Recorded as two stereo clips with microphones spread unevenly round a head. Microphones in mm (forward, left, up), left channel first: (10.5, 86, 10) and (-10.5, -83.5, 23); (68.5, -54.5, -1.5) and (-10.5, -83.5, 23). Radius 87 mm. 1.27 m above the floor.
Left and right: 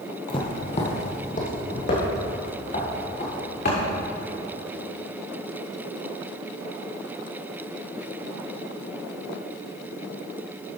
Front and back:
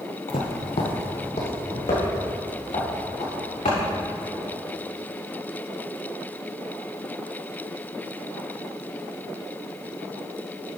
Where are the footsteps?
20° left, 1.9 m; by 3.8 s 40° left, 6.5 m.